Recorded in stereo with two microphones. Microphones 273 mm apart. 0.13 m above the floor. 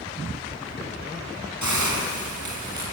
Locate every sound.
1.6 s a hiss: 75° left (ahead or behind), 7.5 m